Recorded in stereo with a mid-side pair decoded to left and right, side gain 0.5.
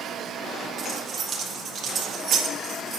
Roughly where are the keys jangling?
Ahead right.